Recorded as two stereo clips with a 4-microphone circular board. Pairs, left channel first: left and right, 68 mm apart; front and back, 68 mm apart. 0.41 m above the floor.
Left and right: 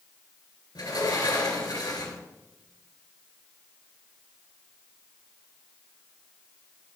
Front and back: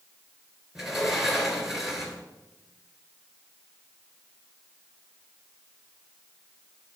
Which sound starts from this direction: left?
A sliding door, at 0.8 s.